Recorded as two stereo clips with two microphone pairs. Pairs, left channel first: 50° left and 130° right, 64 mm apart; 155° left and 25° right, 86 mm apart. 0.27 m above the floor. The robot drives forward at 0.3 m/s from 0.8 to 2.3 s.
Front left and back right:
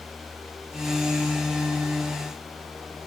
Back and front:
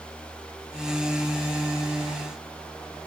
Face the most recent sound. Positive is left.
No sound to turn to.